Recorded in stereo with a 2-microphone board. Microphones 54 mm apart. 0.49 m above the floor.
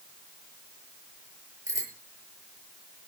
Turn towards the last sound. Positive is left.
turn(degrees=-60)  # may be behind; listen again after turning